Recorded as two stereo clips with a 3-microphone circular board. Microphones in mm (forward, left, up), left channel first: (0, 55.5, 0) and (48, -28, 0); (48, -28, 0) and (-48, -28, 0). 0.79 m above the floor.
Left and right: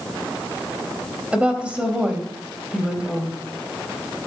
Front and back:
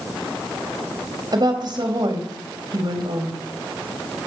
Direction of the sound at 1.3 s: 140° right.